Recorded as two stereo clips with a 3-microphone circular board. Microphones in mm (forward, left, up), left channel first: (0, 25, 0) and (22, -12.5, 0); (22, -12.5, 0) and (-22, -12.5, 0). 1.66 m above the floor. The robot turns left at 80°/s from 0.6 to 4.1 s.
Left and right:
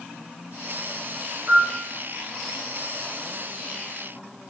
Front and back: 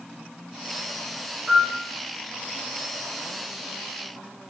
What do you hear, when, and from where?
1.5 s a piano: 105° right, 3 m; by 1.8 s 130° right, 3 m